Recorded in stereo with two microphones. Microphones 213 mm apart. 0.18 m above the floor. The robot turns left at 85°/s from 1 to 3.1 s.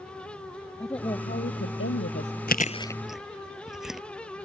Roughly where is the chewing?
Left.